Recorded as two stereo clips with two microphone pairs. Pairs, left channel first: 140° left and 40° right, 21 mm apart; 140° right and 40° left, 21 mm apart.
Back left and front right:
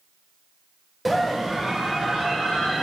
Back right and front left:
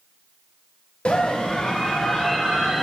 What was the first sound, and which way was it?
A scream, 130° right.